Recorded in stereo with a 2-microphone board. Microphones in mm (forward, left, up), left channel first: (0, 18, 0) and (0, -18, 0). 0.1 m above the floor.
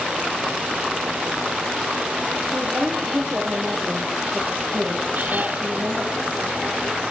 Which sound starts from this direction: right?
A woman speaking, at 2.5 s.